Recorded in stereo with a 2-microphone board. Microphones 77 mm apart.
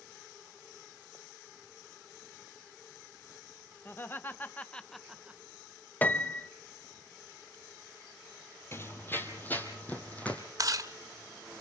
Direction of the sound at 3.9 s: 30° left (ahead or behind).